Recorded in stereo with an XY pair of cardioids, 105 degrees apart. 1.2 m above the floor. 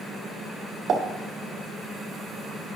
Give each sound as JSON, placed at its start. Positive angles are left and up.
{"t": 0.9, "sound": "a pop", "azimuth_deg": -60, "distance_m": 2.0}